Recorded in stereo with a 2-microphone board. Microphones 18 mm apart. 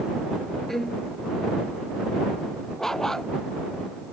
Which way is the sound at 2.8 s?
30° left (ahead or behind).